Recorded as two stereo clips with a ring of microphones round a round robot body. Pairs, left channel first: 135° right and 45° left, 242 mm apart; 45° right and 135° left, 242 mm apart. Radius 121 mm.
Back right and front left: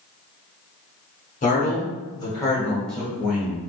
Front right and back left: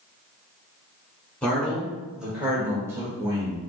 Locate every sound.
1.4 s a man speaking: 125° right, 1.5 m; by 3.6 s 100° left, 1.3 m